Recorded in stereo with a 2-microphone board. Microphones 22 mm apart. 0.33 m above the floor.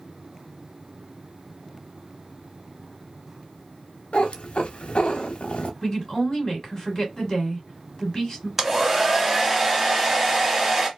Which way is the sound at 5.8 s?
30° left (ahead or behind).